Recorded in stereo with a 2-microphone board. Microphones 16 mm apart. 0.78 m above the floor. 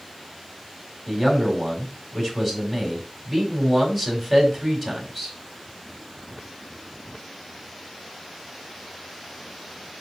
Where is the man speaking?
15° left (ahead or behind), 4.5 m.